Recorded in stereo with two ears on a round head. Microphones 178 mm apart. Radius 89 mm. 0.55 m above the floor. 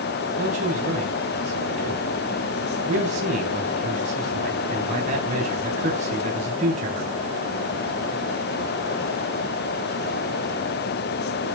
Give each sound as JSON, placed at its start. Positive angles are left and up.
{"t": 0.4, "sound": "a man speaking", "side_deg": -40, "distance_m": 3.5}